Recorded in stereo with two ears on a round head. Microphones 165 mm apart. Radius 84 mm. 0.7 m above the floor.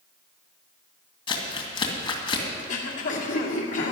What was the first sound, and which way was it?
Crumpling, 30° left (ahead or behind).